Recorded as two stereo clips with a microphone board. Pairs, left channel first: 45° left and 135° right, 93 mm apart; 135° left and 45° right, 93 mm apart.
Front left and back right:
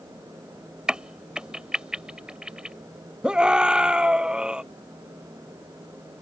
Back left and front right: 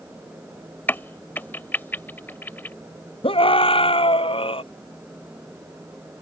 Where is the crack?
160° left.